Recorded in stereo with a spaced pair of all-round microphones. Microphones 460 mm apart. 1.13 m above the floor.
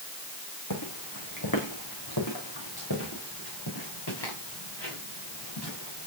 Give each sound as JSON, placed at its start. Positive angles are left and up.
{"t": 0.7, "sound": "footsteps", "side_deg": 45, "distance_m": 5.5}